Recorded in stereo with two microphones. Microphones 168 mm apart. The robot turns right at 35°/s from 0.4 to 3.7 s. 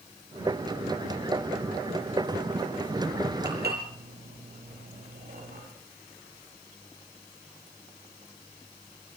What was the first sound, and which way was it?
Dishes clattering, 75° right (ahead or behind).